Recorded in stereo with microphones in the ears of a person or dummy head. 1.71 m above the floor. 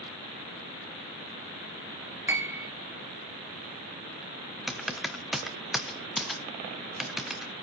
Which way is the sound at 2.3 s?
10° right (ahead or behind).